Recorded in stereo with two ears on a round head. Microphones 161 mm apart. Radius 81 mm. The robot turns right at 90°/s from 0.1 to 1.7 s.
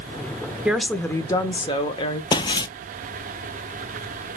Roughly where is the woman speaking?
Centre.